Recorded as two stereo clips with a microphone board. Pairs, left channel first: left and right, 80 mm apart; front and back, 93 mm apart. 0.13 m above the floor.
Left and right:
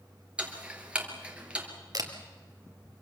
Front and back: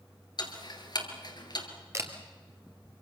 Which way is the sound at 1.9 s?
125° right.